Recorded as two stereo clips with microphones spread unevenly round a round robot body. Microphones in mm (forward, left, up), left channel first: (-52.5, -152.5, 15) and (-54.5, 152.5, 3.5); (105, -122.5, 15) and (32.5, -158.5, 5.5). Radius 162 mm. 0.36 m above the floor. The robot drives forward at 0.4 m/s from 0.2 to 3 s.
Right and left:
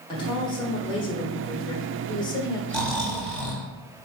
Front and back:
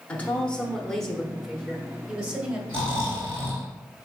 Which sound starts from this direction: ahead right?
A woman speaking, at 0.1 s.